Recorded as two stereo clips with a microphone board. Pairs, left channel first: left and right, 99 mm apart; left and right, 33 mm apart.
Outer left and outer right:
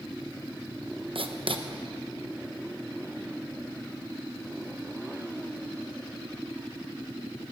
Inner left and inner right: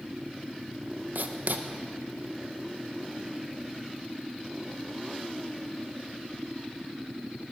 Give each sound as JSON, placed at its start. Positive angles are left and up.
{"t": 1.1, "sound": "writing", "side_deg": -65, "distance_m": 0.9}